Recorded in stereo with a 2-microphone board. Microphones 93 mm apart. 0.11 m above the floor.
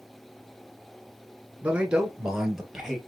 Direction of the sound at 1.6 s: 15° right (ahead or behind).